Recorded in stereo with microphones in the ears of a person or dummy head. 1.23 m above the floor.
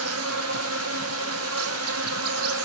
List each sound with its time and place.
0.0 s an insect: 75° right (ahead or behind), 1.0 m